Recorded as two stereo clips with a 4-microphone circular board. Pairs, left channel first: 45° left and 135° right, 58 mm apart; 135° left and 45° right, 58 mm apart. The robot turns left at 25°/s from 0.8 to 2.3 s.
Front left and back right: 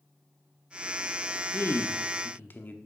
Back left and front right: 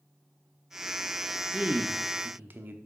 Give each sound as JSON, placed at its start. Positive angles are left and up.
{"t": 1.5, "sound": "a man speaking", "azimuth_deg": 20, "distance_m": 1.0}